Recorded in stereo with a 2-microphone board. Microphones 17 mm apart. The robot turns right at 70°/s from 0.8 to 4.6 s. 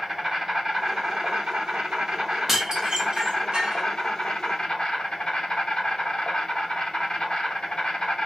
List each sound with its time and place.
0.0 s an insect: 160° right, 2 m; by 8.3 s 105° left, 2 m
2.5 s dishes clattering: 20° right (ahead or behind), 0.8 m; by 3.8 s 50° right (ahead or behind), 0.8 m